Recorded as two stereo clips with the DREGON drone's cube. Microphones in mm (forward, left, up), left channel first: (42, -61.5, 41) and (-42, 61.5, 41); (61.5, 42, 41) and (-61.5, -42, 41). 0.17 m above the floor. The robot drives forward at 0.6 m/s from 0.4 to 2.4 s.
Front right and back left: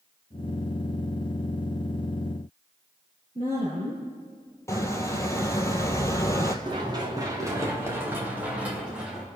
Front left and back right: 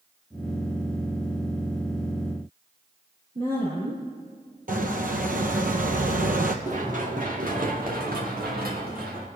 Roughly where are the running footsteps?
Behind.